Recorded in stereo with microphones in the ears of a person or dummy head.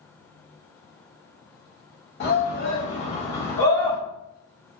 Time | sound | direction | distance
2.2 | a shout | 50° left (ahead or behind) | 1.5 m